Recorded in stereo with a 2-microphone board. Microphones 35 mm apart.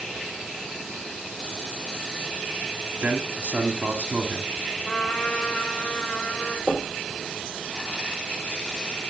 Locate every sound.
3.0 s a man speaking: 45° right (ahead or behind), 2.5 m
4.8 s a trumpet: 30° left (ahead or behind), 6 m
6.7 s knocking: 45° left (ahead or behind), 3.5 m